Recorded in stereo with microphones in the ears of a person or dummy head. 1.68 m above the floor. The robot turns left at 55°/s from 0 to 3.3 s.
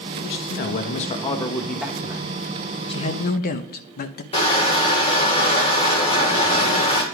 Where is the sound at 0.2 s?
90° left, 1.1 m; by 2.3 s 30° right, 1.1 m.